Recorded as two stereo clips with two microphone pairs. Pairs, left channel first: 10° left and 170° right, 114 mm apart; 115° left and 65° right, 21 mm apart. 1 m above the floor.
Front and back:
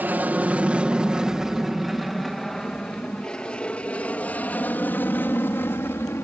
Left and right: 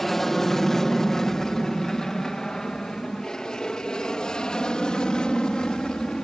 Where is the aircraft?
160° left; by 6.2 s 75° left.